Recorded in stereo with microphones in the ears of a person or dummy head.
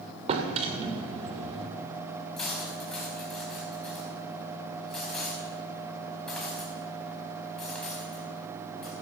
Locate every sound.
0.3 s a drawer: 35° right (ahead or behind), 2.5 m
2.4 s cutlery clinking: 5° left (ahead or behind), 5 m